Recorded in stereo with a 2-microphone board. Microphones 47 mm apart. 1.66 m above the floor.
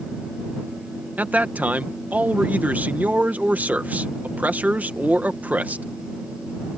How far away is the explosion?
No explosion in this recording.